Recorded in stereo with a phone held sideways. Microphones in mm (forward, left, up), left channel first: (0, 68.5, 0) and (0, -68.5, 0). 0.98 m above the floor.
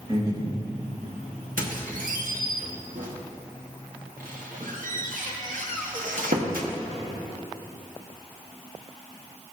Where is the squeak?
80° right, 1.2 m.